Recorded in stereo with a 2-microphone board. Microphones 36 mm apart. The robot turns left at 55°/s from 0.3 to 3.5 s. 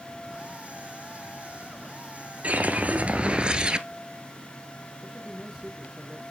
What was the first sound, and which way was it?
A whoosh, 80° right.